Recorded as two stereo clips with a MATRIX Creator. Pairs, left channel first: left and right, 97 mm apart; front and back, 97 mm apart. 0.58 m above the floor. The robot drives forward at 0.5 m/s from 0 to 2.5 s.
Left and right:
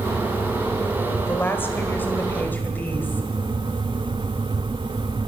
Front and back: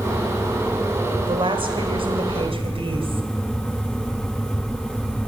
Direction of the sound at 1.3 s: 155° left.